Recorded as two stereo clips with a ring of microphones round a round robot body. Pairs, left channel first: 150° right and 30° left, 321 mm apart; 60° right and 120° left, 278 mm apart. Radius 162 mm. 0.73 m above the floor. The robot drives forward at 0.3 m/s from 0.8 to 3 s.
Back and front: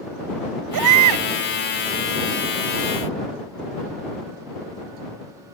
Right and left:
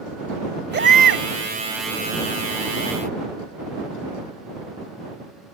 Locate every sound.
0.7 s a baby crying: 65° left; by 1.2 s 70° left